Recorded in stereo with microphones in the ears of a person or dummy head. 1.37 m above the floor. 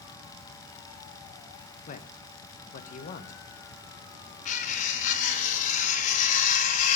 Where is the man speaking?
45° left (ahead or behind), 1.1 m.